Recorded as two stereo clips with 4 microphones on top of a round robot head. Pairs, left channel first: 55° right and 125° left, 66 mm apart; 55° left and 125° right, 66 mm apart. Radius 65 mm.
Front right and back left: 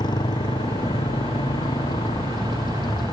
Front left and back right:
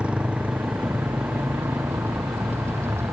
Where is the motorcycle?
50° right; by 3.1 s 70° right.